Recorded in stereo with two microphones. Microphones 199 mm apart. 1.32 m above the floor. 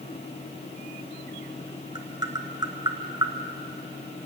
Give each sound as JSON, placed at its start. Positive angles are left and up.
{"t": 1.9, "sound": "tapping", "side_deg": -20, "distance_m": 1.7}